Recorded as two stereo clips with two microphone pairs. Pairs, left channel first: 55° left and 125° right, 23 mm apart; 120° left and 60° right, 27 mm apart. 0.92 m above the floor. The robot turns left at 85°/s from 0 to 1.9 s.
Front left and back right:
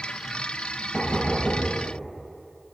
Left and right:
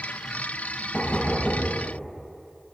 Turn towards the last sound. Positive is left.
turn(degrees=15)